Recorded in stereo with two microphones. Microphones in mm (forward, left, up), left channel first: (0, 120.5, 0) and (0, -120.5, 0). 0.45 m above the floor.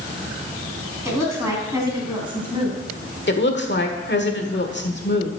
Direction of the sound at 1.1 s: 10° right (ahead or behind).